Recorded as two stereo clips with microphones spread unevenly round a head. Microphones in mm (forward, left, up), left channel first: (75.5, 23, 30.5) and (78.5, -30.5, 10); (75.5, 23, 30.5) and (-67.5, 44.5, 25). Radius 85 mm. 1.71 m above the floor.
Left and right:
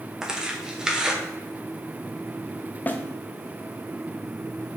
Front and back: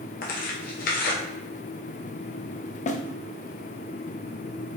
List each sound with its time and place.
0.2 s tearing paper: 5° left, 1.0 m
2.9 s a snare drum: 30° left, 0.6 m